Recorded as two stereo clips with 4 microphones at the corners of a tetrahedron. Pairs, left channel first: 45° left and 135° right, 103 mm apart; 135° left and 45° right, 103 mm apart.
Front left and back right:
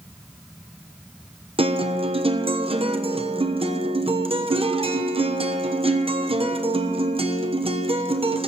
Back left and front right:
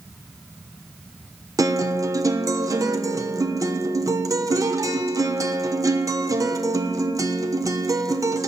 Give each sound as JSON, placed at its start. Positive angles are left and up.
{"t": 1.6, "sound": "a guitar", "azimuth_deg": -105, "distance_m": 1.0}